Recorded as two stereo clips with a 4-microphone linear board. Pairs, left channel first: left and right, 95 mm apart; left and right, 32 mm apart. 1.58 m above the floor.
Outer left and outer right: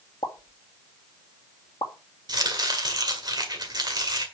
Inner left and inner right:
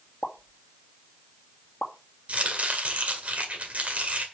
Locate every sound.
0.2 s a pop: 55° left (ahead or behind), 1.7 m
2.3 s chopping: 50° right (ahead or behind), 1.9 m